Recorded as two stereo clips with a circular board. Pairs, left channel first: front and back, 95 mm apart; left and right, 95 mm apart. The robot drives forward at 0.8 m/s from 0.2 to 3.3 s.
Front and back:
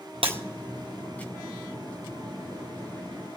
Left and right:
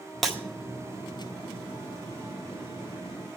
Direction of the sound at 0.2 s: Straight behind.